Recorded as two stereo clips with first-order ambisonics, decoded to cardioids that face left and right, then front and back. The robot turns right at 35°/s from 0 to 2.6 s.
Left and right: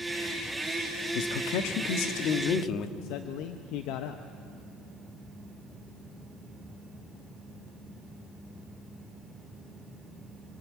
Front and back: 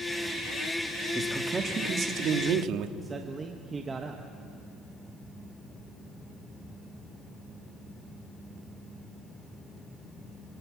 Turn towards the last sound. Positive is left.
turn(degrees=110)